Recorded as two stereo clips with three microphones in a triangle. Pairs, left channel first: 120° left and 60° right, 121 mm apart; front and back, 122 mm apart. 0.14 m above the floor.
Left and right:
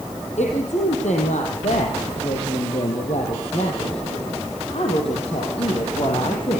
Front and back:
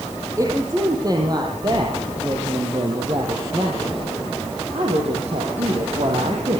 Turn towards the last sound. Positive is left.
turn(degrees=160)